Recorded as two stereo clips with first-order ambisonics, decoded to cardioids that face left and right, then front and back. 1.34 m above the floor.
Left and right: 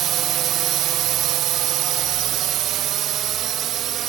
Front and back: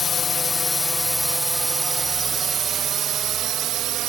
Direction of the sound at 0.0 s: 60° right.